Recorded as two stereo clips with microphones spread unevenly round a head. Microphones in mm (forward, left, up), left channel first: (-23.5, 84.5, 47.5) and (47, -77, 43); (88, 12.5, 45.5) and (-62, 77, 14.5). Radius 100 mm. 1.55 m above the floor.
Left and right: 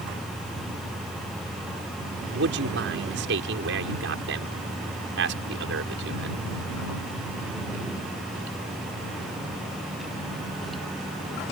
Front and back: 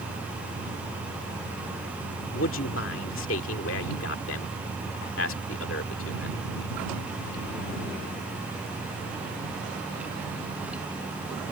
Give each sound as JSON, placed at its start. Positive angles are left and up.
{"t": 2.3, "sound": "a man speaking", "azimuth_deg": -45}